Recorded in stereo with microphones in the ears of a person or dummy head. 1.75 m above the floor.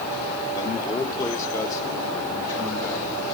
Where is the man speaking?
20° left (ahead or behind), 1.3 m; by 3.2 s 15° left (ahead or behind), 3 m.